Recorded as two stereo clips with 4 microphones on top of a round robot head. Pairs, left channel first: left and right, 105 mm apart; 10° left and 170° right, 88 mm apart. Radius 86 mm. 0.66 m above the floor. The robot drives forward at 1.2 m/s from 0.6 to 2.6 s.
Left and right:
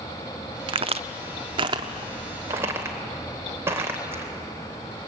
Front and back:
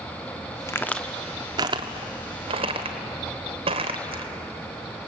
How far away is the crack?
About 0.9 m.